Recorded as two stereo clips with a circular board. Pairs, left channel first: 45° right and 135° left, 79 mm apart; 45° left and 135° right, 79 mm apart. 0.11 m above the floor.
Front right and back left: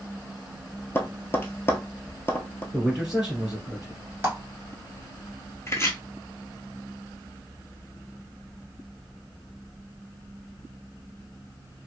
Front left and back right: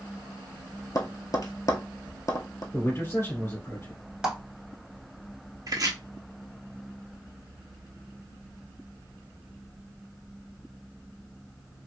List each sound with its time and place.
0.9 s tapping: 10° left, 0.6 m
2.7 s a man speaking: 60° left, 1.9 m
4.2 s a clap: 155° left, 1.0 m
5.7 s chopping: 95° right, 0.7 m